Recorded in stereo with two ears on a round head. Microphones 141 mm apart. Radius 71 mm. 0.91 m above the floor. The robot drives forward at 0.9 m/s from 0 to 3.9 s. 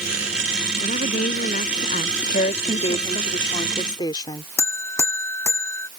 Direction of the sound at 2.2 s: 50° left (ahead or behind).